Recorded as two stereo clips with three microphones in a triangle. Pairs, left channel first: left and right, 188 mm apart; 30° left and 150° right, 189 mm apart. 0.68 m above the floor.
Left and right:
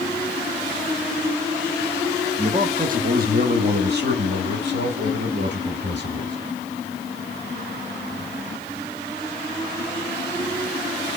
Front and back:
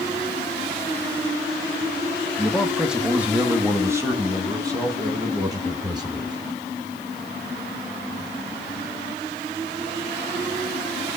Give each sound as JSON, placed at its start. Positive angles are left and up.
{"t": 2.4, "sound": "a man speaking", "azimuth_deg": -55, "distance_m": 0.8}